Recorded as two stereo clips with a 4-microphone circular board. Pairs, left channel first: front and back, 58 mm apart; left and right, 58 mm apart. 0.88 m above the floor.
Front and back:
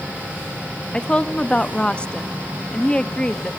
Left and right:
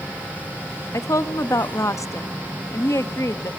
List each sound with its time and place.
0.9 s a woman speaking: 70° left, 0.8 m